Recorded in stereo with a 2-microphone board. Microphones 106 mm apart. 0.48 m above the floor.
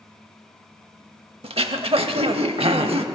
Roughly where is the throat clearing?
Right.